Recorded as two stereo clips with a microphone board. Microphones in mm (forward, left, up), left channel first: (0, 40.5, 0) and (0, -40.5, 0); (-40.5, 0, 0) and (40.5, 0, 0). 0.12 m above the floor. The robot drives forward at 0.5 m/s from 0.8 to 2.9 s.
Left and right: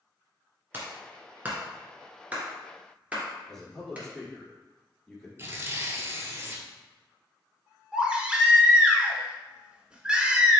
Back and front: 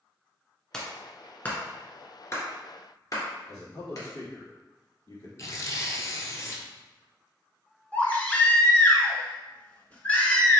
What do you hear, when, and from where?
0.7 s a clap: 110° right, 1.2 m; by 4.1 s 155° right, 1.7 m
3.5 s a man speaking: 170° left, 2.0 m
5.4 s tearing paper: 140° right, 0.8 m
7.9 s a baby crying: 150° right, 0.8 m